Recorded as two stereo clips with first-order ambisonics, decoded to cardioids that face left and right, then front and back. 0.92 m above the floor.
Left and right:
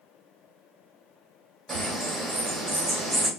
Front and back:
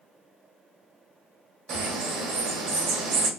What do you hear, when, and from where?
1.7 s a bird: 160° right, 1.7 m